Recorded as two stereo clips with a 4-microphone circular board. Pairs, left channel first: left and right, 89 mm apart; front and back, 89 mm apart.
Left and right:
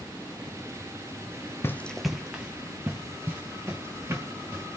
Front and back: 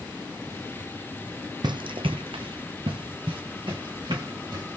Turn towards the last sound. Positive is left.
turn(degrees=-150)